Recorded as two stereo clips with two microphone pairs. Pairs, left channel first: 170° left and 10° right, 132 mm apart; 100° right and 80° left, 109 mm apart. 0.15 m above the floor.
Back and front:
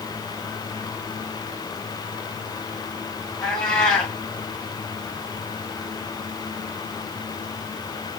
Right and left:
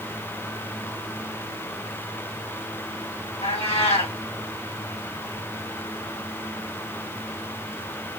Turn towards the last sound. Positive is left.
turn(degrees=-105)